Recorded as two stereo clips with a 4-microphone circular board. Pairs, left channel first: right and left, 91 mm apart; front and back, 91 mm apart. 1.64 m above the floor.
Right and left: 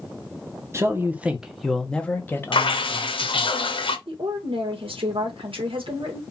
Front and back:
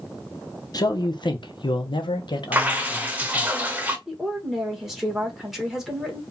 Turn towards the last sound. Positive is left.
turn(degrees=95)